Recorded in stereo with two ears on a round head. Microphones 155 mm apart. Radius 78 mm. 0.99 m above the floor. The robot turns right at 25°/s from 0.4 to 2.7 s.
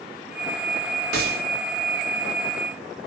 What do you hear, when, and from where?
1.1 s a gunshot: 60° right (ahead or behind), 1.9 m; by 1.4 s 55° right (ahead or behind), 1.9 m